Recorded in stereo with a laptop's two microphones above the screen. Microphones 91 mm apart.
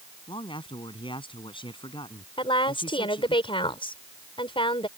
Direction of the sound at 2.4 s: 70° left (ahead or behind).